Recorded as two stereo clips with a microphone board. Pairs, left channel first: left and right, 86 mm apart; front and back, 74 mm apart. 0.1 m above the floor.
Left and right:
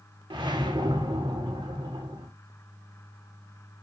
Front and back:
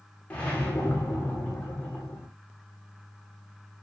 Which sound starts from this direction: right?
A whoosh, at 0.3 s.